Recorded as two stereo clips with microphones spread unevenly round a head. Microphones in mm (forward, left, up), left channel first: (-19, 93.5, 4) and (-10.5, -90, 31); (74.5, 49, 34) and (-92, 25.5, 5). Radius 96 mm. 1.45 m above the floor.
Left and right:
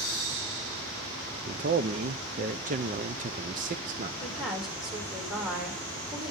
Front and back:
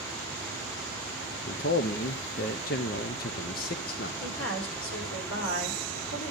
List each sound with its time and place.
1.5 s a man speaking: 35° right, 0.6 m
4.2 s a woman speaking: straight ahead, 4.5 m